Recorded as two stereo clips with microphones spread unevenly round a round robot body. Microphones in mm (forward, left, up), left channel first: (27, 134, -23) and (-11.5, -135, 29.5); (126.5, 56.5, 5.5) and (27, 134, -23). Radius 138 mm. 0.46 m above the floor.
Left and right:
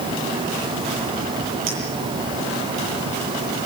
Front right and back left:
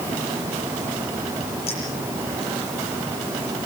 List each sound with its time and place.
1.7 s a clink: 80° right, 9.5 m